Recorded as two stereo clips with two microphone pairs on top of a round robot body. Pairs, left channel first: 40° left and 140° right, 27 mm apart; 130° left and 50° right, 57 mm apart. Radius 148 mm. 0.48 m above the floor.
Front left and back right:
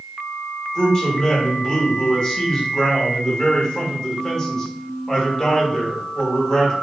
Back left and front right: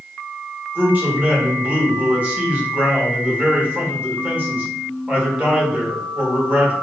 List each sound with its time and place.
0.8 s a man speaking: 10° right, 1.3 m